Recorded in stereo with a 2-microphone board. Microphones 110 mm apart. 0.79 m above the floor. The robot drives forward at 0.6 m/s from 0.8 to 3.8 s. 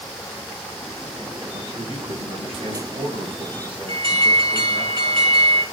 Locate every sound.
1.5 s a man speaking: 75° right (ahead or behind), 3.5 m; by 4.9 s 60° right (ahead or behind), 4 m
3.9 s an alarm: 50° right (ahead or behind), 4.5 m